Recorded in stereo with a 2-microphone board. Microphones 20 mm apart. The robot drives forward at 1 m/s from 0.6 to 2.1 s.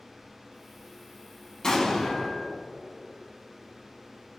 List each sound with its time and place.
1.6 s an explosion: 30° left (ahead or behind), 1.5 m